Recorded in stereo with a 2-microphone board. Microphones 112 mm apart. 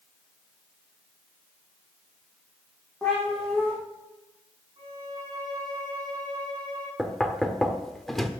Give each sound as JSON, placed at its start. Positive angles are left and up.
{"t": 3.0, "sound": "a cat meowing", "side_deg": 5, "distance_m": 5.0}
{"t": 4.8, "sound": "a violin", "side_deg": -40, "distance_m": 6.0}
{"t": 7.0, "sound": "knocking", "side_deg": 5, "distance_m": 1.1}